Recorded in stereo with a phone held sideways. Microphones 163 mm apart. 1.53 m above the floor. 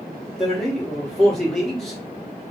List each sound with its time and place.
0.4 s a man speaking: 5° left (ahead or behind), 1.3 m